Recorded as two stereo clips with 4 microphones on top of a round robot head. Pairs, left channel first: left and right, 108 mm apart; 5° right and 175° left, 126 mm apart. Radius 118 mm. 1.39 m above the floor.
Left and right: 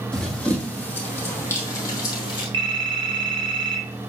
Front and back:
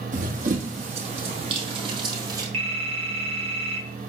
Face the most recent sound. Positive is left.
turn(degrees=-130)